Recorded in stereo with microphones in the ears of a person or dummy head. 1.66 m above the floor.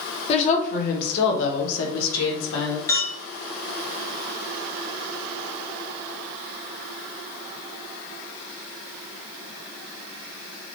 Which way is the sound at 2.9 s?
15° left (ahead or behind).